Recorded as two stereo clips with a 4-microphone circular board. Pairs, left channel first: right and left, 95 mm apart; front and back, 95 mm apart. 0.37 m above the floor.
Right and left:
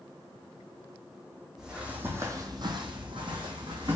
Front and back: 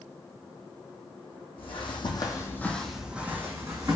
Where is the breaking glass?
No breaking glass in this recording.